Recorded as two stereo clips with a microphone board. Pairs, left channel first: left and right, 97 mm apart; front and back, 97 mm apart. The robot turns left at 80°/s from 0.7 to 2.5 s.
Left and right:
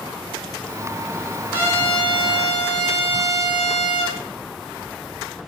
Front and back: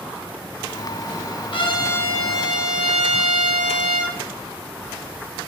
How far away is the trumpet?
About 4 m.